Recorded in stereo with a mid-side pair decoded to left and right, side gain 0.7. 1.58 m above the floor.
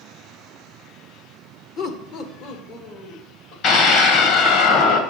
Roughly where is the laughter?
Ahead left.